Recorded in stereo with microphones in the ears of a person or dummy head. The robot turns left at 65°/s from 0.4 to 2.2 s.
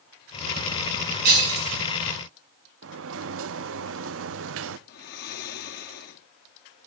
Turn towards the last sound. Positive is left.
turn(degrees=60)  # may be behind; listen again after turning